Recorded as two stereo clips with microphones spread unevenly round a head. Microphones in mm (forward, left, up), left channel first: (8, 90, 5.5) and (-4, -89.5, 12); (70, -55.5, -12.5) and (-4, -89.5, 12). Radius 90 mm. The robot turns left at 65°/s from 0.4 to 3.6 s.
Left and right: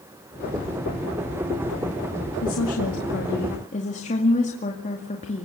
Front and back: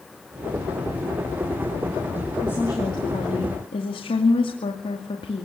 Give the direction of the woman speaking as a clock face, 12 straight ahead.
8 o'clock.